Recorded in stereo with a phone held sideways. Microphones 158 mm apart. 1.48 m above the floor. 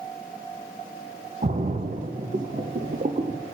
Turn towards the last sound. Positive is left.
turn(degrees=-55)  # may be behind; listen again after turning